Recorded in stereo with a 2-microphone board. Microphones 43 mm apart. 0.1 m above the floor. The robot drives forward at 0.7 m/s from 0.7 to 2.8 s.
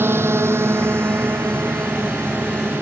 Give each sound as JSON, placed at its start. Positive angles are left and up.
{"t": 0.0, "sound": "a drone", "side_deg": -60}